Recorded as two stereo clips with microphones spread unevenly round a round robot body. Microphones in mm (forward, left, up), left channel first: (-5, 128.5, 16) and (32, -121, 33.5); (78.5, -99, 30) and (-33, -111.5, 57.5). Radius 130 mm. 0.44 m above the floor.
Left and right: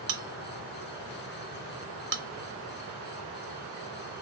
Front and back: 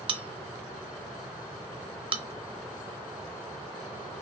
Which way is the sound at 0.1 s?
125° right.